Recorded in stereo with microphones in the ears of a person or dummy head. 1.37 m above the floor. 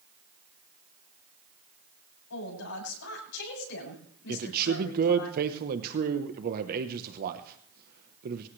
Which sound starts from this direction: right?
A man speaking, at 4.3 s.